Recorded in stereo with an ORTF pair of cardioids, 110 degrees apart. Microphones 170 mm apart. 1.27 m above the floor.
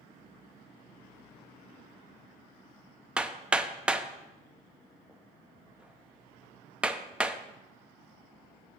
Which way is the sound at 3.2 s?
5° right.